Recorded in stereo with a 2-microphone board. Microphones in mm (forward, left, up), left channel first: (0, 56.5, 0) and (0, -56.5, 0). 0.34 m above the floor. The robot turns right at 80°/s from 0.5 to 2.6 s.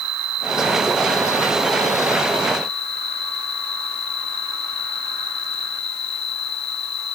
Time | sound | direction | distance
0.0 | an insect | 95° right | ?